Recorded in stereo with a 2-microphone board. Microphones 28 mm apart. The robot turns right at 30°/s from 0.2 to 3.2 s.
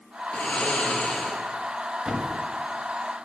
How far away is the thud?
About 1.6 m.